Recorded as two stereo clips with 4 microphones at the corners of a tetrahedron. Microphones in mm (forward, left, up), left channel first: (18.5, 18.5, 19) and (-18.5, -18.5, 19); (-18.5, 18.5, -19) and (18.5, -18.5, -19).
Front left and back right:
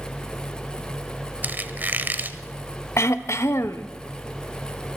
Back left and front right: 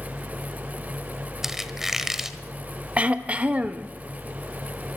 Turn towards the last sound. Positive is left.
turn(degrees=20)